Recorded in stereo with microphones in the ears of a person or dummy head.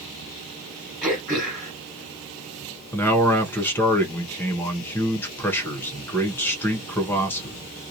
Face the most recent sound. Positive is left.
turn(degrees=10)  # may be behind; listen again after turning